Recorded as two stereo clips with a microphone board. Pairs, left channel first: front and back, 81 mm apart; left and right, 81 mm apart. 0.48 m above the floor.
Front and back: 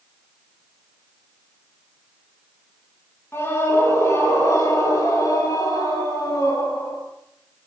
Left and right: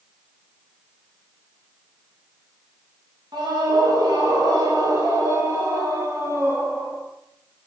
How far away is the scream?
About 9 m.